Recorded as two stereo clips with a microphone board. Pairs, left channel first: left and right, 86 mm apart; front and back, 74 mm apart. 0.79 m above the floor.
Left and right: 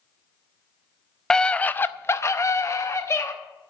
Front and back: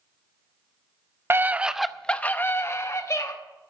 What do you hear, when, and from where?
1.3 s a scream: 165° left, 0.6 m; by 3.3 s 40° left, 1.1 m